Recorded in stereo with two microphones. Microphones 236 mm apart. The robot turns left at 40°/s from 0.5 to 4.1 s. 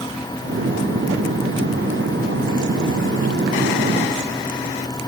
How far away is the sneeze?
I don't hear a sneeze.